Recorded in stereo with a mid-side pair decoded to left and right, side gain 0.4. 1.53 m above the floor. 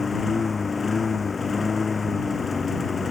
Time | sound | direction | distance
0.0 | a lawn mower | 35° left | ?